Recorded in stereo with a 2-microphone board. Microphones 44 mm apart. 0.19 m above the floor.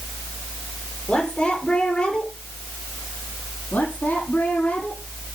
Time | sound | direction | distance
1.1 | a woman speaking | 25° left (ahead or behind) | 5 m
3.7 | a woman speaking | 40° left (ahead or behind) | 6 m